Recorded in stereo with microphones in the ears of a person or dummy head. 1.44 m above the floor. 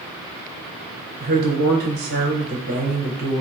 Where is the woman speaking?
55° right (ahead or behind), 0.9 m.